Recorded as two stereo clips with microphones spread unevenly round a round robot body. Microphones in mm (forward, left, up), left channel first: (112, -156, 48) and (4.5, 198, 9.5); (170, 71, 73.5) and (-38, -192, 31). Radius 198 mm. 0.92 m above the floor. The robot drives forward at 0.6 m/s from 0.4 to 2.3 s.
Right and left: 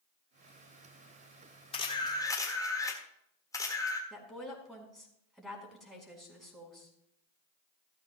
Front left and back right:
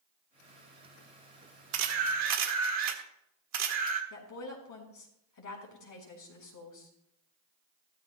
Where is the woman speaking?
20° left, 4.5 m.